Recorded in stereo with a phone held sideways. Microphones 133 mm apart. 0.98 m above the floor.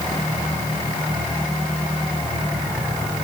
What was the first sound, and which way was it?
Only background noise.